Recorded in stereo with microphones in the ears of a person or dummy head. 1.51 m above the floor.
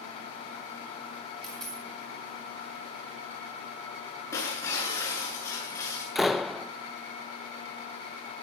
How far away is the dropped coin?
About 5.5 m.